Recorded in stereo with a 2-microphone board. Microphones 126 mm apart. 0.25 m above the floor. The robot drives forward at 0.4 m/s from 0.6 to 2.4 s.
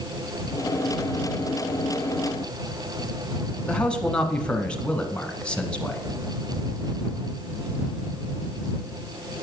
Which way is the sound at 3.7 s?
10° left (ahead or behind).